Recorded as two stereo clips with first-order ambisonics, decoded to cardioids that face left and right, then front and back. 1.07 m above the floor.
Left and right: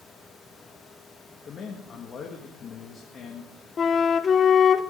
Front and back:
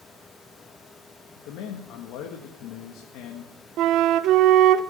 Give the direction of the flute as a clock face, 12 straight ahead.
7 o'clock.